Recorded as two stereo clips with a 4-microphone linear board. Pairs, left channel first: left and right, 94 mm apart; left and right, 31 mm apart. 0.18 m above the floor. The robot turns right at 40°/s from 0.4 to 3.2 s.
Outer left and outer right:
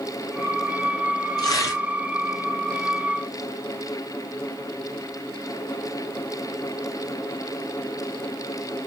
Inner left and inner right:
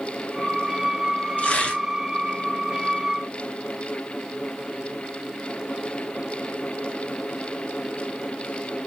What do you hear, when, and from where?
1.4 s tearing paper: 45° left (ahead or behind), 1.0 m; by 1.8 s 35° left (ahead or behind), 1.0 m